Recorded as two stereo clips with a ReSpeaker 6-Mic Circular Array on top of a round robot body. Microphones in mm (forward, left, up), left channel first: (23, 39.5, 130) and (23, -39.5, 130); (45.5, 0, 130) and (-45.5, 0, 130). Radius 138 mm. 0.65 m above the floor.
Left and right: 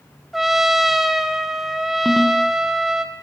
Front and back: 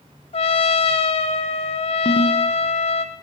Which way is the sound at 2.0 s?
Straight ahead.